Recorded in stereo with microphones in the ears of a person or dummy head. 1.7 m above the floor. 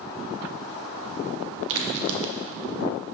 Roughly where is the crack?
Right.